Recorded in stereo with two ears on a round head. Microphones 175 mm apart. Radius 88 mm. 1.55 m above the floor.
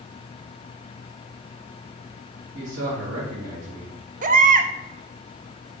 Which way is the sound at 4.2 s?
45° right (ahead or behind).